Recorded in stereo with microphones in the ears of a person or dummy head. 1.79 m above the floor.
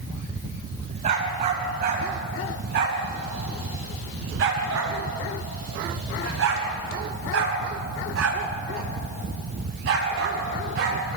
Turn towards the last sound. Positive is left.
turn(degrees=-60)  # may be behind; listen again after turning